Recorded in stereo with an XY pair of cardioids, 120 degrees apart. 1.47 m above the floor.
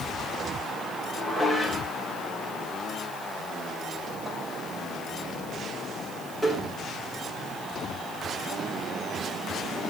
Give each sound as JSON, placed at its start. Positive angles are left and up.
{"t": 1.2, "sound": "dishes clattering", "azimuth_deg": -10, "distance_m": 4.0}